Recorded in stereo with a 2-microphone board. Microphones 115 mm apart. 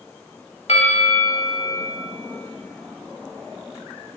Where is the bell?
70° left (ahead or behind), 1.4 m.